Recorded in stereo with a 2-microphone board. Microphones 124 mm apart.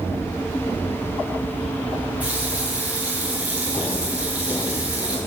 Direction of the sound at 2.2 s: 10° right (ahead or behind).